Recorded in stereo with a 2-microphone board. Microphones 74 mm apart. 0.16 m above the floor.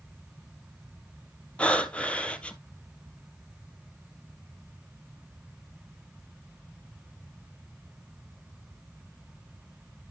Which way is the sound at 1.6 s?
15° left (ahead or behind).